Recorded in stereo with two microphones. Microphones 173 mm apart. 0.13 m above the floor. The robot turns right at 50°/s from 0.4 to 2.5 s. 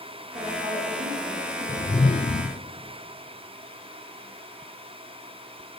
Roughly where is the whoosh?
Ahead left.